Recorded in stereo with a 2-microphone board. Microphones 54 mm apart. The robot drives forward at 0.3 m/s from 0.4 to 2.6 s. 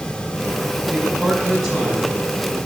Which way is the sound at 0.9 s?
Centre (ahead or behind).